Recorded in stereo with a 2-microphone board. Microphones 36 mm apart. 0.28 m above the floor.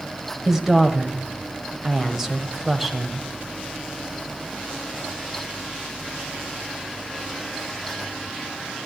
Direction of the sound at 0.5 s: 10° right (ahead or behind).